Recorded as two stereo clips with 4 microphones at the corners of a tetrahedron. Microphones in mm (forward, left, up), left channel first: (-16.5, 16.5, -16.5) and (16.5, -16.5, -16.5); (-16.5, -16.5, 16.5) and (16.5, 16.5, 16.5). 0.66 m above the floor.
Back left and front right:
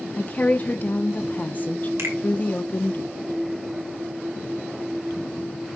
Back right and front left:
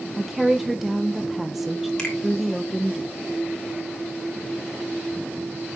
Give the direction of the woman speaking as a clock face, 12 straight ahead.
8 o'clock.